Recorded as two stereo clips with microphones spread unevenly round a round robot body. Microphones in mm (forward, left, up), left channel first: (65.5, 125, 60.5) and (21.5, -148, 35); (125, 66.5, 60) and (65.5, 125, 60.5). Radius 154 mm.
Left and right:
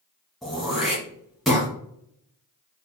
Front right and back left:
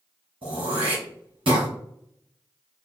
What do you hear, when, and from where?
0.4 s throat clearing: 170° left, 1.3 m